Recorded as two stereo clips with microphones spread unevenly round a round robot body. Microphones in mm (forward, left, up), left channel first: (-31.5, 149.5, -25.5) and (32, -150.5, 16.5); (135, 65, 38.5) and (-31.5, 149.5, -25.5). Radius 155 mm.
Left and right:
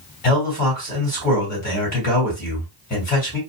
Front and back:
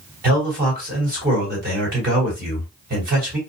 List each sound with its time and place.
0.2 s a man speaking: 160° left, 2 m